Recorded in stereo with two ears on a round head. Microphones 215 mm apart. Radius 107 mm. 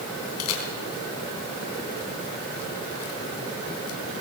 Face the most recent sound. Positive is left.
turn(degrees=70)  # may be behind; listen again after turning